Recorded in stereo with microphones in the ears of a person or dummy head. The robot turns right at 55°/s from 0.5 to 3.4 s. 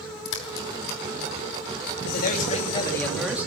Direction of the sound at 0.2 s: 75° left (ahead or behind).